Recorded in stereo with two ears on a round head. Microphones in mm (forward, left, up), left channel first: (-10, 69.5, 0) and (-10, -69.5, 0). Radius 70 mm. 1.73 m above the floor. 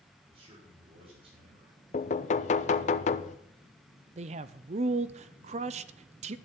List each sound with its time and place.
0.3 s a man speaking: 35° right (ahead or behind), 6.5 m
1.9 s knocking: 45° left (ahead or behind), 0.6 m
4.2 s a man speaking: 45° right (ahead or behind), 0.5 m